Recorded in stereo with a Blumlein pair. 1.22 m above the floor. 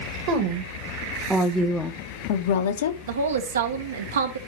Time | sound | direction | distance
0.3 | a woman speaking | 40° right | 1.6 m
3.1 | a woman speaking | 65° right | 1.2 m